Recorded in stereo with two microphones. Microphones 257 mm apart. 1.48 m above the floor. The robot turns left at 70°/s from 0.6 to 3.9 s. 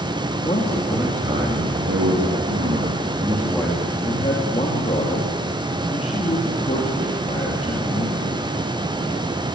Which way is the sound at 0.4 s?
25° left.